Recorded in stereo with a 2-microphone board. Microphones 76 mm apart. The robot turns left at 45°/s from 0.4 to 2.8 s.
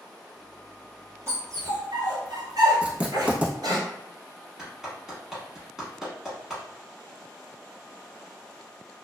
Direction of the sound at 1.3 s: 40° right (ahead or behind).